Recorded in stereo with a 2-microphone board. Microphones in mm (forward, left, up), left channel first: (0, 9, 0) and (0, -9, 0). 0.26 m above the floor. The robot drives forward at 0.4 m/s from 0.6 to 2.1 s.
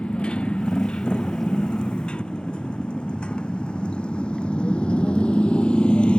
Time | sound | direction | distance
0.0 | a motorcycle | 75° left (ahead or behind) | ?